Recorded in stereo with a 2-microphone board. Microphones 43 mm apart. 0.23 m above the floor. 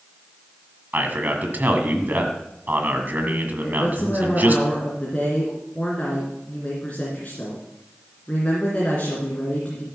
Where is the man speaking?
45° right (ahead or behind), 1.7 m.